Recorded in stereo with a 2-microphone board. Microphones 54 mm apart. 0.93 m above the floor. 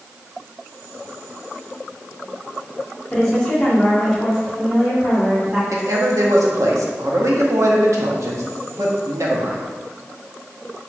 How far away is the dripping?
No dripping in this recording.